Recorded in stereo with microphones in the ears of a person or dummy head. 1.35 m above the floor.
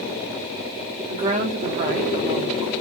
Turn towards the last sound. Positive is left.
turn(degrees=-40)  # may be behind; listen again after turning